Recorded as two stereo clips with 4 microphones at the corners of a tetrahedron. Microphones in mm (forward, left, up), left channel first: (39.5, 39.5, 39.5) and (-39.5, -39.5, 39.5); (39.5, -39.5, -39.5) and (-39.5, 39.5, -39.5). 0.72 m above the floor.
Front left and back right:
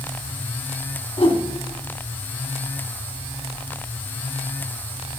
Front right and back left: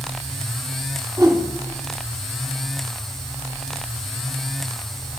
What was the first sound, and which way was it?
A whoosh, 70° left.